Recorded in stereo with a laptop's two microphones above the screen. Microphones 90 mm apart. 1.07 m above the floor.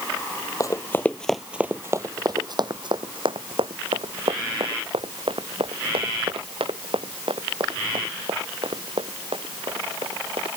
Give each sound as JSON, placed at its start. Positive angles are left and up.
{"t": 0.6, "sound": "running footsteps", "side_deg": 40}